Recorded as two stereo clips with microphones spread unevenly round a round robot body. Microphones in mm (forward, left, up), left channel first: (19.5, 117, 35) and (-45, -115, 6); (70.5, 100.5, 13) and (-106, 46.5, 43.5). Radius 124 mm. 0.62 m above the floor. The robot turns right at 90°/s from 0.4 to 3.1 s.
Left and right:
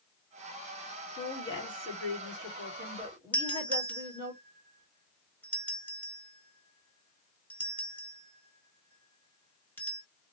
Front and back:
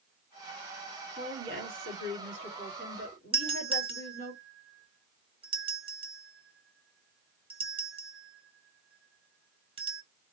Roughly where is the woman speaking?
Behind left.